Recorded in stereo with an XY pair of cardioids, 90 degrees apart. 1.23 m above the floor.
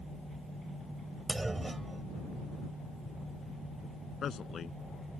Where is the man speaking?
55° left.